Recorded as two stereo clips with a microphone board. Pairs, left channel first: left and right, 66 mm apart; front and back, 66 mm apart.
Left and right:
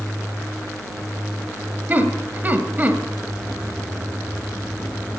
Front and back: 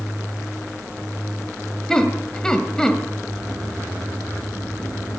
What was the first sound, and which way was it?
Laughter, 70° right.